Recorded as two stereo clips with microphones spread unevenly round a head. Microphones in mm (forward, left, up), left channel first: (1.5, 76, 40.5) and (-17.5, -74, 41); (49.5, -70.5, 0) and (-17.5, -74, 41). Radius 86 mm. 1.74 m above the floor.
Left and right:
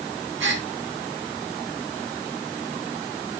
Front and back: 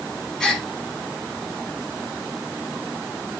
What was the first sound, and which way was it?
A gasp, 95° right.